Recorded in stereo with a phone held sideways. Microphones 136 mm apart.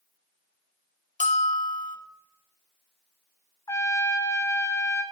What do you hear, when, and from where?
1.2 s a bell: 75° left (ahead or behind), 0.6 m
3.7 s a trumpet: 25° left (ahead or behind), 0.5 m